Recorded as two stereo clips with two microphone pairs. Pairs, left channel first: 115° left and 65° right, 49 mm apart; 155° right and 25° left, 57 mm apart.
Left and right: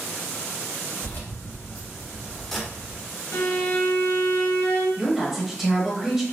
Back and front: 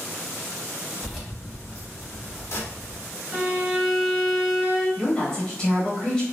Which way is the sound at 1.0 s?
115° left.